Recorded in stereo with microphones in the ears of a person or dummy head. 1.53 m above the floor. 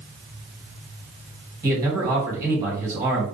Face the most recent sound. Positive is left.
turn(degrees=-15)  # may be behind; listen again after turning